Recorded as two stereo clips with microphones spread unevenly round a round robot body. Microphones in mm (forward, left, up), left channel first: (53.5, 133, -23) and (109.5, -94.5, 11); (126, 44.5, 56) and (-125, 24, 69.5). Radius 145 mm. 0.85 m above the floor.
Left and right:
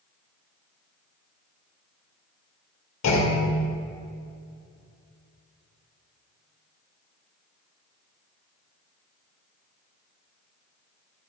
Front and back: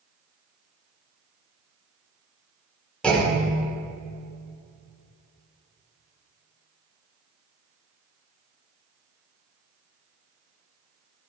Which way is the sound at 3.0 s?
90° left.